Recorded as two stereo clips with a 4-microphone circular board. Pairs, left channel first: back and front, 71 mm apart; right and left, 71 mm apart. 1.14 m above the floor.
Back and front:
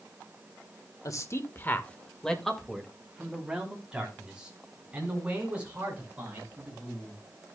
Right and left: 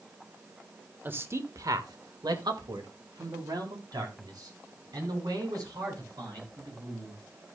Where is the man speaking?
150° left, 1.3 m; by 7.2 s 65° left, 6.5 m.